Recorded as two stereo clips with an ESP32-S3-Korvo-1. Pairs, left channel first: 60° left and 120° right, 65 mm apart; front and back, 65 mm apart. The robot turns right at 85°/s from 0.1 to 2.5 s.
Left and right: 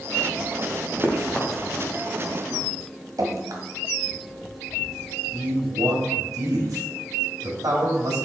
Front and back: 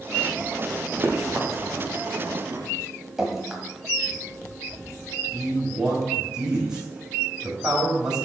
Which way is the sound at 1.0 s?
130° left.